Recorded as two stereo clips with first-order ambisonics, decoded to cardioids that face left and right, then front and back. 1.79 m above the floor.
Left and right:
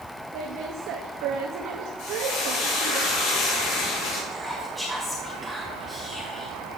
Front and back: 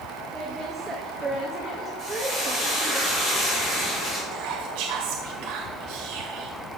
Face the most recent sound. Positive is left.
turn(degrees=175)